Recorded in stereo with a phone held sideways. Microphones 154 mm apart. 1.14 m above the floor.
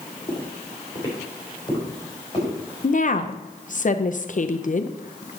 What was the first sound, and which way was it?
Footsteps, 30° left (ahead or behind).